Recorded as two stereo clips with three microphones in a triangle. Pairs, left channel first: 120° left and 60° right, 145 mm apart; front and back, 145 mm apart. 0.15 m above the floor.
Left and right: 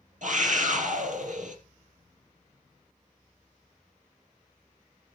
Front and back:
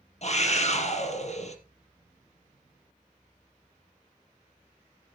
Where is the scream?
35° right, 3.5 m.